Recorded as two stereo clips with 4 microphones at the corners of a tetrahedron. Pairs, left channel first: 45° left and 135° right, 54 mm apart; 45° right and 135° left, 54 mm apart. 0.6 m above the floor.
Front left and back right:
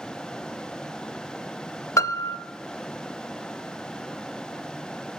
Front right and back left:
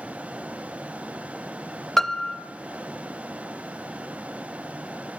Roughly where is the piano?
Ahead left.